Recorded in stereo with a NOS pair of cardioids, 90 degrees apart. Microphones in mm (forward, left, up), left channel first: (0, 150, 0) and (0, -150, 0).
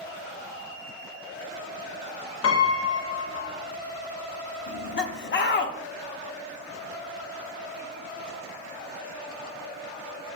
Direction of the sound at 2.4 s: 50° left.